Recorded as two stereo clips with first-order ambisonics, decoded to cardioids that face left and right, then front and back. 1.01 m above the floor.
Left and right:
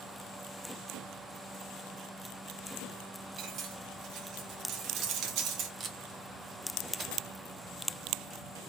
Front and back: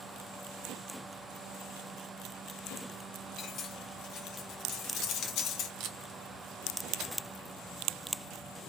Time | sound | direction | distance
3.4 | cutlery clinking | 50° right | 0.7 m
5.8 | tape being pulled | 150° right | 0.7 m